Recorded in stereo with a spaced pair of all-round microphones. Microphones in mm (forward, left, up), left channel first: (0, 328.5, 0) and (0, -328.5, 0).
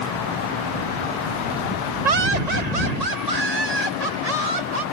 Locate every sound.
2.0 s laughter: 85° right; by 4.8 s 65° right (ahead or behind)